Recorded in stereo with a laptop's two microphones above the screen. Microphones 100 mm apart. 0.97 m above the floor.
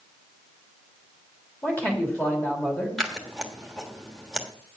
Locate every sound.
1.6 s a man speaking: 15° left (ahead or behind), 2.5 m
3.0 s scissors: centre (ahead or behind), 1.2 m